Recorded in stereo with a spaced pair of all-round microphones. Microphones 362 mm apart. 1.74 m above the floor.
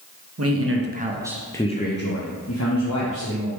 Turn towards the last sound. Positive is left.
turn(degrees=55)  # may be behind; listen again after turning